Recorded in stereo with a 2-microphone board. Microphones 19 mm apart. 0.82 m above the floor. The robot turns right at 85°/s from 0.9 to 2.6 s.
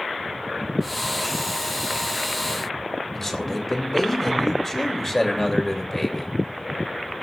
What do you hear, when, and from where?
3.1 s a man speaking: 15° left (ahead or behind), 3 m